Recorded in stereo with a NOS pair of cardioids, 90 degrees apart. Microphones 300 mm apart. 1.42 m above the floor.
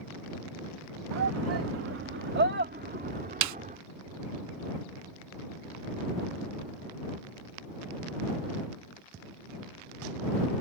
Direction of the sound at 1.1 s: 65° right.